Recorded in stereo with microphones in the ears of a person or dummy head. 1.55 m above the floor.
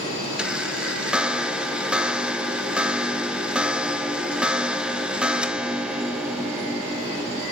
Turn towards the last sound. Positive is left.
turn(degrees=-5)  # may be behind; listen again after turning